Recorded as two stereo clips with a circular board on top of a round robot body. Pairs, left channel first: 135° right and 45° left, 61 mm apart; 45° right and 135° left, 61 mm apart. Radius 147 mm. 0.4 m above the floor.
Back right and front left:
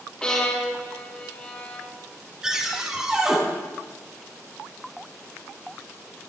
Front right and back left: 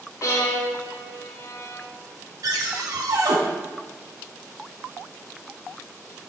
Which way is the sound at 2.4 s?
125° left.